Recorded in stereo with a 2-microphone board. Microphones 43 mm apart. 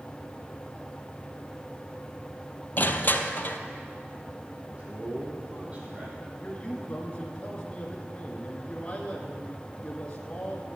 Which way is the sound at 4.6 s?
35° right (ahead or behind).